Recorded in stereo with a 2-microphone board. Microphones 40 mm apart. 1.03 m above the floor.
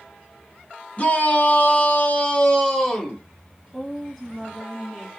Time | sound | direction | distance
1.0 | a shout | 35° left (ahead or behind) | 0.9 m
3.7 | a woman speaking | 5° left (ahead or behind) | 1.7 m